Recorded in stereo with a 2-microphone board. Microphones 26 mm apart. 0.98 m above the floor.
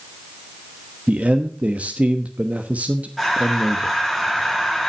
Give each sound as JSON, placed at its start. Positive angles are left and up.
{"t": 1.1, "sound": "a man speaking", "side_deg": -65, "distance_m": 1.1}
{"t": 3.2, "sound": "breathing", "side_deg": 0, "distance_m": 4.5}